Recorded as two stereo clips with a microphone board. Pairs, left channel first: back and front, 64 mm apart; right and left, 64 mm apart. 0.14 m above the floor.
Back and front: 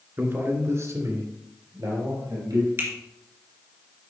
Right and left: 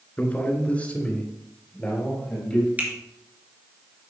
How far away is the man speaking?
About 2 m.